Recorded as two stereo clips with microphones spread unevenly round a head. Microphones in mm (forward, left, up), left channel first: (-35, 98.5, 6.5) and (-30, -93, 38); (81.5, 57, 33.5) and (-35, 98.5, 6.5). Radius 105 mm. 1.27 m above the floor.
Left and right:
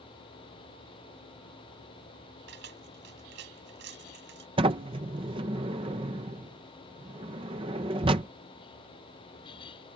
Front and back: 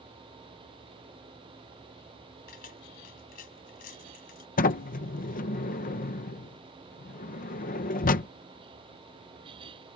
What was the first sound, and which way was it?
Keys jangling, 50° right.